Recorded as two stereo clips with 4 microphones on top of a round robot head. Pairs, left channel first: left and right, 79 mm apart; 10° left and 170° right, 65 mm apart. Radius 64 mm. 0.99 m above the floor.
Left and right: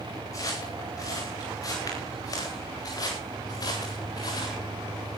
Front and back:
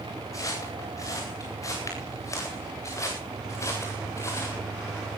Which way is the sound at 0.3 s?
45° left.